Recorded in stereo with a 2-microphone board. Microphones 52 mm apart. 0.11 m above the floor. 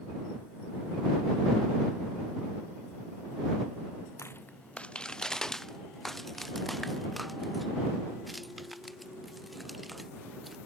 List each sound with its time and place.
4.2 s footsteps: 60° left (ahead or behind); by 10.6 s centre (ahead or behind)